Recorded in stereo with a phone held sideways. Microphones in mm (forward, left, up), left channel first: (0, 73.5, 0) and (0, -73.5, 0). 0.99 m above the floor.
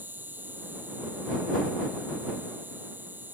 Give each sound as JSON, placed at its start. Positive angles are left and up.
{"t": 0.0, "sound": "an insect", "side_deg": -15}